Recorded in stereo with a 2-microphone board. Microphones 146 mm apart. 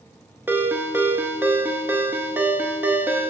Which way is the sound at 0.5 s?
15° right (ahead or behind).